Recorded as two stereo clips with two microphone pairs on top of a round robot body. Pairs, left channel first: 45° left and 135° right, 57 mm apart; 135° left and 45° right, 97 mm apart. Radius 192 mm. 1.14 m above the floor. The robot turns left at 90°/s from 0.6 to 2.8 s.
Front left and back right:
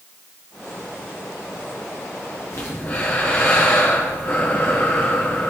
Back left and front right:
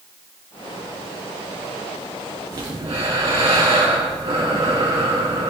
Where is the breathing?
10° left, 2.5 m; by 5.5 s 15° right, 2.5 m.